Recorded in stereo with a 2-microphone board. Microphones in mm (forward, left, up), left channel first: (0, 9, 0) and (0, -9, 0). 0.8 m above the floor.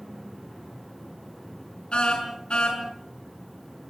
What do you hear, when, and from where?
1.9 s a car horn: 80° left, 5 m